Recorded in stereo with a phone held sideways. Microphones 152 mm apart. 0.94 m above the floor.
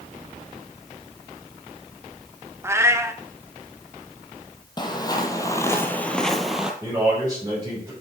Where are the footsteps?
30° left (ahead or behind), 1.3 m; by 6.7 s 5° right (ahead or behind), 1.0 m.